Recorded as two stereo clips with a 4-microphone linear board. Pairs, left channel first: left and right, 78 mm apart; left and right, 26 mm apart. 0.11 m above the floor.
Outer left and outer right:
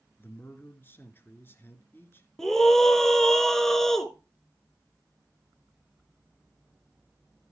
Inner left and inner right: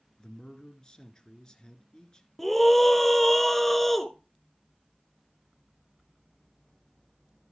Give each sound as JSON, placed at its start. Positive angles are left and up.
{"t": 0.2, "sound": "a man speaking", "side_deg": 30, "distance_m": 1.6}
{"t": 2.4, "sound": "a scream", "side_deg": 5, "distance_m": 1.2}